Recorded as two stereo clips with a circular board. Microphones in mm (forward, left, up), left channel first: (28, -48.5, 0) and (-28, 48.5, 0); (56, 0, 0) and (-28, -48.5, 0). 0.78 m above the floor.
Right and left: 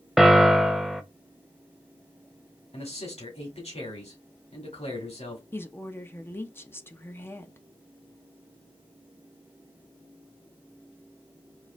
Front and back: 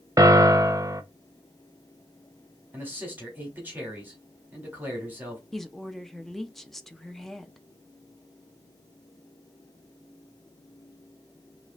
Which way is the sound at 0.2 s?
155° right.